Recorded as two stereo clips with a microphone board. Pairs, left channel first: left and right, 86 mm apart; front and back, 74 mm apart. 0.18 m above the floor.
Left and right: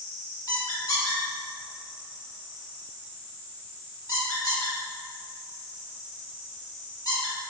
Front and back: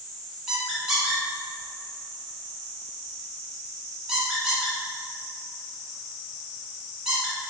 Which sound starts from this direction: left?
A squeak, at 0.5 s.